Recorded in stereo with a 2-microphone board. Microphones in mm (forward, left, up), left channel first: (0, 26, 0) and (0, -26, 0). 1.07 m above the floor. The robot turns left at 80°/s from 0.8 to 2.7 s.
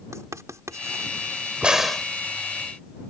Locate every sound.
0.1 s writing: 85° right; by 1.1 s 60° right (ahead or behind)
1.6 s a crack: 155° right; by 2.1 s 165° left